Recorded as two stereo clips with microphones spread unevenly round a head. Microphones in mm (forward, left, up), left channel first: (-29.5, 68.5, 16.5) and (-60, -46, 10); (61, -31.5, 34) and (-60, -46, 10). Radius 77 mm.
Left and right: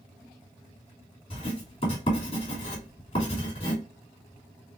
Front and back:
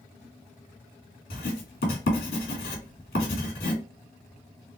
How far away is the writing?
About 2.5 m.